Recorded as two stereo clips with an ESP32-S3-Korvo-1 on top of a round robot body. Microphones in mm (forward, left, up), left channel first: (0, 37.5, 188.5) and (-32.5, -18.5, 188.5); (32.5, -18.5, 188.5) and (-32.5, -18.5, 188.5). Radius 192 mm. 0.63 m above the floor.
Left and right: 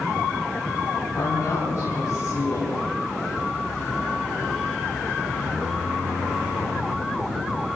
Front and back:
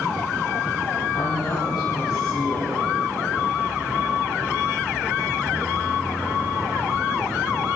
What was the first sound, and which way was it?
A woman speaking, 10° left.